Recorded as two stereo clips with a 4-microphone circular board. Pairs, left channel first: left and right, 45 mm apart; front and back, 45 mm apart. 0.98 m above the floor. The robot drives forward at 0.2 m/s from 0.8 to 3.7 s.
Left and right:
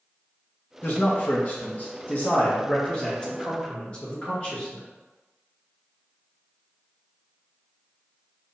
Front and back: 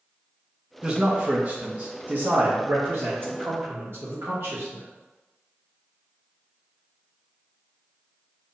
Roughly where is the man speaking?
Behind left.